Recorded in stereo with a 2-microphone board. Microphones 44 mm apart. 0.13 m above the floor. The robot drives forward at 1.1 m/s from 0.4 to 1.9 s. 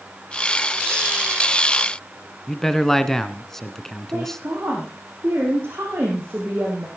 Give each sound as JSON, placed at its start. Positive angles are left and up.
{"t": 2.5, "sound": "a man speaking", "side_deg": 5, "distance_m": 1.1}
{"t": 4.1, "sound": "a woman speaking", "side_deg": -65, "distance_m": 4.5}